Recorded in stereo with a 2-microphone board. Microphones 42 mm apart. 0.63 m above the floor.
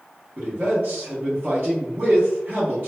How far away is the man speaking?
About 1.0 m.